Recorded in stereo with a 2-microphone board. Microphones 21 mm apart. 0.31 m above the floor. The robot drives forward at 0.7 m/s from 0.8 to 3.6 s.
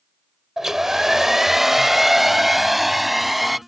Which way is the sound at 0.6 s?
20° right (ahead or behind).